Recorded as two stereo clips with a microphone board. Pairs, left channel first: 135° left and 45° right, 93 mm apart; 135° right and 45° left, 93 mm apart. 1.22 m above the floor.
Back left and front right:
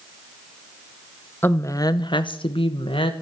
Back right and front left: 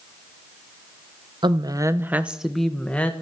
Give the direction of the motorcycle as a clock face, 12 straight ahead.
No motorcycle in this recording.